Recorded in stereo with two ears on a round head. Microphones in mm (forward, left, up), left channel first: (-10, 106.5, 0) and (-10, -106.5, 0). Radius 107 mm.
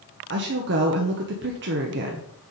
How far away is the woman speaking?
About 0.9 m.